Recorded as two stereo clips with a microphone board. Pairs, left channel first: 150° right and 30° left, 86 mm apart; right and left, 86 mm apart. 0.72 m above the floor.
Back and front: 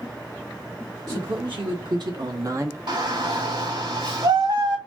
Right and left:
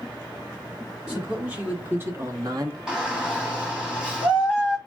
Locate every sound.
1.1 s a man speaking: 10° left, 1.8 m; by 2.8 s 80° left, 1.0 m
2.9 s a shout: 10° left, 2.5 m